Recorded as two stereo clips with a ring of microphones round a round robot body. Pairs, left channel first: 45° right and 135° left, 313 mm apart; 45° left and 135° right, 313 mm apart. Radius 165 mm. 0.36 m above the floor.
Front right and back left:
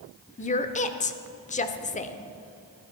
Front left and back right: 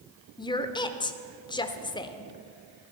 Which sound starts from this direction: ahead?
A woman speaking, at 0.4 s.